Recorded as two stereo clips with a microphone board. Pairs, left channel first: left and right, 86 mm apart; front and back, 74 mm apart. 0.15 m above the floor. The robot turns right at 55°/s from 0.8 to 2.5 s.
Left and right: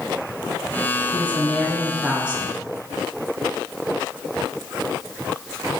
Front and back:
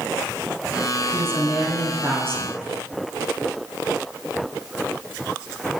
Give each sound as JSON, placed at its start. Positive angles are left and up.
{"t": 1.1, "sound": "a woman speaking", "azimuth_deg": 140, "distance_m": 1.8}